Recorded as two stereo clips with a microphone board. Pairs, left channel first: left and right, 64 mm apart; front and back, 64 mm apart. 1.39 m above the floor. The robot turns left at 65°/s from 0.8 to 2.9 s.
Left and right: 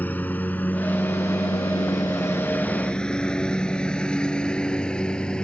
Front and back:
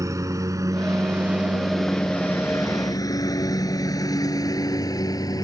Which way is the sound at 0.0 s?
150° left.